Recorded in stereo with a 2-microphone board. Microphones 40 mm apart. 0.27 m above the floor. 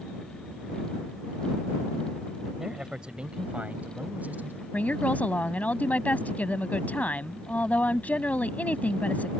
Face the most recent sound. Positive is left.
turn(degrees=40)  # may be behind; listen again after turning